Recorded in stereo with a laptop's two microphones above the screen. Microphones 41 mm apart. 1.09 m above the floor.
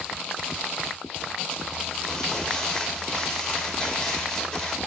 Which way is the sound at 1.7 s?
15° left (ahead or behind).